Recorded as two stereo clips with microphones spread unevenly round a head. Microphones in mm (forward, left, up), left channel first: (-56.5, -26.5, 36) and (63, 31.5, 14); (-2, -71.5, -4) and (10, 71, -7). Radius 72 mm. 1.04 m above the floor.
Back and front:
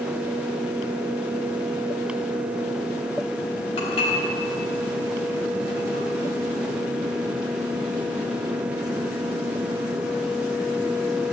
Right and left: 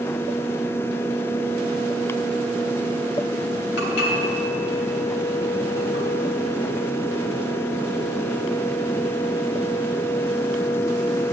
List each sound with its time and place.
3.8 s dishes clattering: 105° right, 3.5 m